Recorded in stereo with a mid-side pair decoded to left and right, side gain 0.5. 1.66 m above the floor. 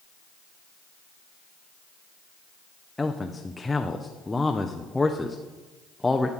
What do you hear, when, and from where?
3.0 s a man speaking: 15° left, 0.7 m